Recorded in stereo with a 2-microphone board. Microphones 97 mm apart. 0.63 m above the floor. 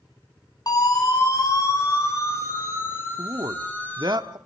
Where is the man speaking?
50° right (ahead or behind), 1.2 m.